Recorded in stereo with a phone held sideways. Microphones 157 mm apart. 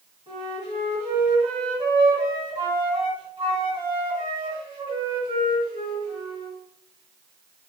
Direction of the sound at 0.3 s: 35° right (ahead or behind).